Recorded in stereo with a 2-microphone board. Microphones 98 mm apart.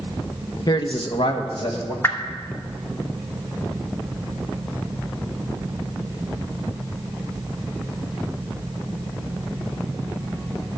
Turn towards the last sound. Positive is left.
turn(degrees=25)  # may be behind; listen again after turning